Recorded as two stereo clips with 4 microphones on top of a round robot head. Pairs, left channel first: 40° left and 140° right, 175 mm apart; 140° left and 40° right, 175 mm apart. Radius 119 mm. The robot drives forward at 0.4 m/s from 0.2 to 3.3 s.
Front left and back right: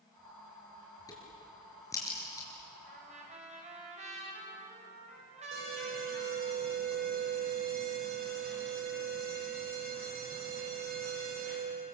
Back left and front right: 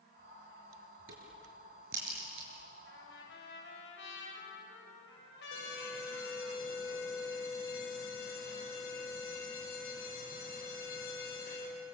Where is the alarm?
Straight behind, 6.5 m.